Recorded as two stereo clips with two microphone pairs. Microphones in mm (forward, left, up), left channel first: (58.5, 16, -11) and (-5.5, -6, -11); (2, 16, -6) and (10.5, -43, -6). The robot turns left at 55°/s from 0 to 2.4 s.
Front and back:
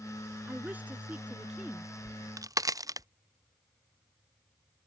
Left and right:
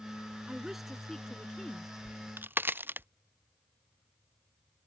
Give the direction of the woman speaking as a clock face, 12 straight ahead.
5 o'clock.